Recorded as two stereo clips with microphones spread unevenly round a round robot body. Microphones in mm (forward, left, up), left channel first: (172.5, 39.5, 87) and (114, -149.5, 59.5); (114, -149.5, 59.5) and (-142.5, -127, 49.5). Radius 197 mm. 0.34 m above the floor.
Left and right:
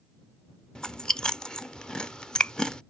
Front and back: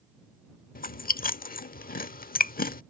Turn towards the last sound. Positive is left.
turn(degrees=-25)